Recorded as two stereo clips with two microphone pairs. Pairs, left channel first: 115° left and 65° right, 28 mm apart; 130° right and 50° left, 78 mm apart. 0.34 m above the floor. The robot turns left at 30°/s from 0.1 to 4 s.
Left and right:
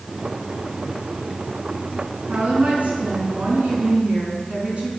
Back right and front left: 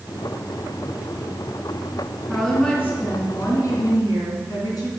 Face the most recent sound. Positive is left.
turn(degrees=-100)